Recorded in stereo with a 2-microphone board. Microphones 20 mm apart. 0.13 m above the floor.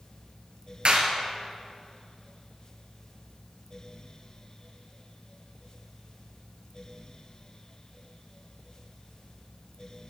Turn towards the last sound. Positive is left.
turn(degrees=-55)  # may be behind; listen again after turning